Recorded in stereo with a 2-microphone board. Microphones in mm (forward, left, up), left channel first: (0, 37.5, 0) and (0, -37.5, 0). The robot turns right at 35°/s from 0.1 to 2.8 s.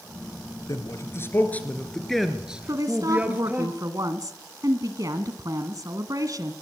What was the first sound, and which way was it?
A man speaking, 50° left (ahead or behind).